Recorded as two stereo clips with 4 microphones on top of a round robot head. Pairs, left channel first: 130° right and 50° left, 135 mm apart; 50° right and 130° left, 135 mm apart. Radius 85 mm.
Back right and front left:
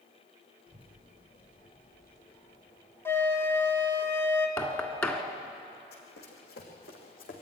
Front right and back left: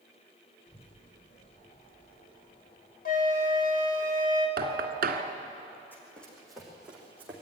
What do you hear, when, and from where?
0.7 s a child speaking: 5° right, 7.5 m; by 3.0 s 5° left, 7.5 m
3.0 s a flute: 55° right, 2 m
4.6 s knocking: 155° left, 1.5 m
5.9 s running footsteps: 130° right, 3.5 m; by 7.4 s 155° right, 4 m